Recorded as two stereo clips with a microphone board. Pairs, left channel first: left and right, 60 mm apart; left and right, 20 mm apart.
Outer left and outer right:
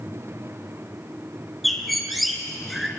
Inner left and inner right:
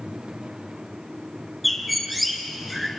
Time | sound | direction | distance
1.6 | a bird | centre (ahead or behind) | 2.5 m